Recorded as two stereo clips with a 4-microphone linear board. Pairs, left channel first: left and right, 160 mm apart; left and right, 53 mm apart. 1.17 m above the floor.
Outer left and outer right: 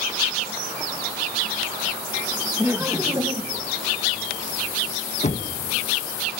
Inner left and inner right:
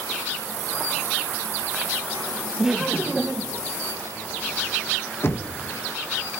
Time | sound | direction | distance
2.6 | laughter | 10° right (ahead or behind) | 1.5 m
5.2 | knocking | 45° left (ahead or behind) | 1.3 m